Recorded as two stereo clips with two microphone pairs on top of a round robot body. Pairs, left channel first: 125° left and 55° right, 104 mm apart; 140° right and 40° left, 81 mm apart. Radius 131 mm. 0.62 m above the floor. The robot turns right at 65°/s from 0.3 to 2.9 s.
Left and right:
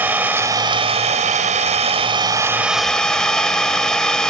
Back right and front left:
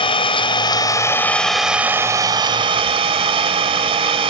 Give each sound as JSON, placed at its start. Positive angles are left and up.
{"t": 0.0, "sound": "an engine running", "azimuth_deg": -130, "distance_m": 1.9}